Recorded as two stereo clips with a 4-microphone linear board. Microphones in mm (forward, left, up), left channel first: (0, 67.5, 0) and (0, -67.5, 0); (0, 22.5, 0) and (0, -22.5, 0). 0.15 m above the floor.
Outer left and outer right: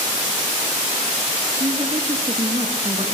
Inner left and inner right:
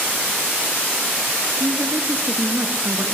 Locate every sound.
1.6 s a woman speaking: 45° right (ahead or behind), 2 m